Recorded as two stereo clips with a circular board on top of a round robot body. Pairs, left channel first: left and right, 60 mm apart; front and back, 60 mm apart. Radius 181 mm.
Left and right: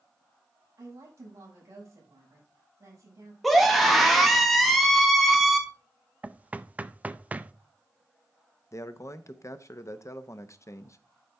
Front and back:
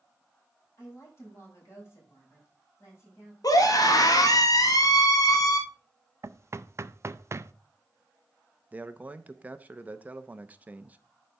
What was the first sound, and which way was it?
A woman speaking, 50° right.